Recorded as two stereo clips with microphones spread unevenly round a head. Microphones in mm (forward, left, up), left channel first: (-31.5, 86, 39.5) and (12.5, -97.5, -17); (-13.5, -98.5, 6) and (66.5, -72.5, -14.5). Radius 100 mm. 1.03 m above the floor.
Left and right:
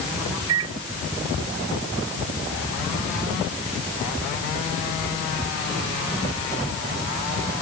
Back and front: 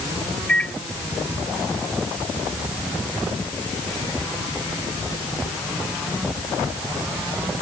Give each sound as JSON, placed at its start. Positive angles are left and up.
{"t": 0.5, "sound": "a microwave", "azimuth_deg": -90}